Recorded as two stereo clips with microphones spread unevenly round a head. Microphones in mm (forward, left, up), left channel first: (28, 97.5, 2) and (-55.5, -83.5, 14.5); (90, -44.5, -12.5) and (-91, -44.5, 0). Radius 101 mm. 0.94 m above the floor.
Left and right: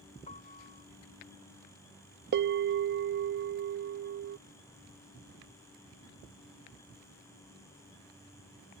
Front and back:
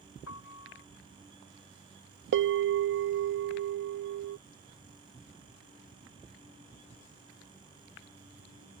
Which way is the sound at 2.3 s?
155° right.